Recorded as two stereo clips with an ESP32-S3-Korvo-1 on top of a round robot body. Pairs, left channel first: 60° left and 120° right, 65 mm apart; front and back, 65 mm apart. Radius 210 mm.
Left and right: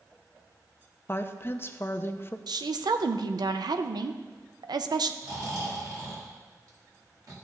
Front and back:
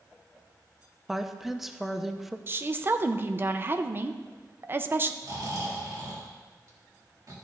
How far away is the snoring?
About 2.5 m.